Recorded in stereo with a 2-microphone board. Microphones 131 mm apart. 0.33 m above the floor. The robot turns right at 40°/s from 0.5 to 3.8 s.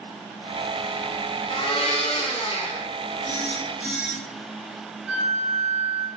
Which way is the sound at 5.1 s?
15° right (ahead or behind).